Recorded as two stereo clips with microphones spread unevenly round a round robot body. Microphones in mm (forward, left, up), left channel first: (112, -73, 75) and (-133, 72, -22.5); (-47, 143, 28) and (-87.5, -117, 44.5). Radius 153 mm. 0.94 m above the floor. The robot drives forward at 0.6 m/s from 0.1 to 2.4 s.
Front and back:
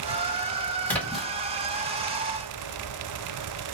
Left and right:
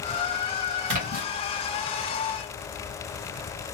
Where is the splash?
120° right, 1.4 m; by 1.3 s 125° right, 1.5 m.